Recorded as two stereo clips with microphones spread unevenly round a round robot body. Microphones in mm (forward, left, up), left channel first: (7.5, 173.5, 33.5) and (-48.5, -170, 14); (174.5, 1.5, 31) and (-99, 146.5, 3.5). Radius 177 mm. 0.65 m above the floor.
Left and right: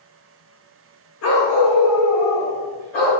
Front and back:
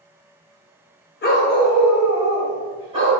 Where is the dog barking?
30° left, 0.6 m; by 3.1 s 85° left, 1.4 m.